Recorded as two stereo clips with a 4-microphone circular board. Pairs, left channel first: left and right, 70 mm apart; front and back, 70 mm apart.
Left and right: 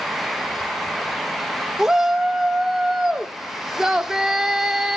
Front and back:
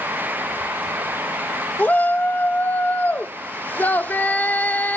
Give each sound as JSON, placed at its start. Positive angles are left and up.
{"t": 1.8, "sound": "a shout", "azimuth_deg": -15, "distance_m": 0.8}